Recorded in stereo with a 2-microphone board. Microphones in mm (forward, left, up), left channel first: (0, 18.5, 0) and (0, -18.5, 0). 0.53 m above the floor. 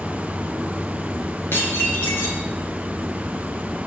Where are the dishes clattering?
85° left, 5.5 m.